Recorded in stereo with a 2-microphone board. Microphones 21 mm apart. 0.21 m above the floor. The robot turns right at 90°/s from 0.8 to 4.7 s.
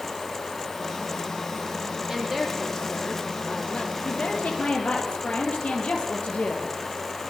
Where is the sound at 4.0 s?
50° left, 7.5 m; by 7.3 s 105° left, 7.5 m.